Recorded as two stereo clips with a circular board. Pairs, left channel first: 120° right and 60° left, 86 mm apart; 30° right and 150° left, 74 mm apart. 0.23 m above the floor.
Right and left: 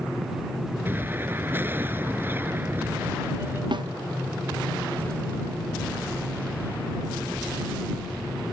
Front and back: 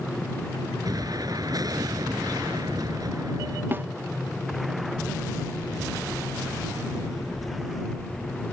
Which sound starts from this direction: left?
A snare drum, at 3.7 s.